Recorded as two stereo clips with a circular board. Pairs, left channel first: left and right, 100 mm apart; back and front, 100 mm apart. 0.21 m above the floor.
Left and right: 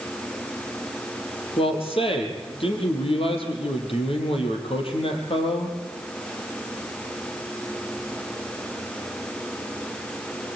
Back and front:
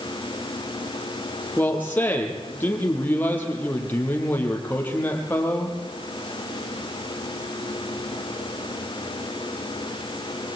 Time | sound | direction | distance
1.6 | a man speaking | 110° left | 5.5 m